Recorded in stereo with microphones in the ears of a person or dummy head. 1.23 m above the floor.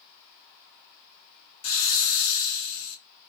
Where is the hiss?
75° left (ahead or behind), 0.8 m.